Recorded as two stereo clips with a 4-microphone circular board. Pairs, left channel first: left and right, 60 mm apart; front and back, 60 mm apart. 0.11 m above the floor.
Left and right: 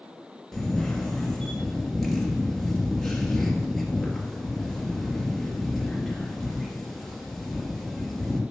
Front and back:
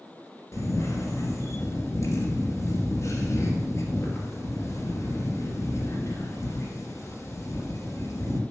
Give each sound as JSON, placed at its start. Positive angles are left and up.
{"t": 0.5, "sound": "a camera shutter", "azimuth_deg": 5, "distance_m": 2.5}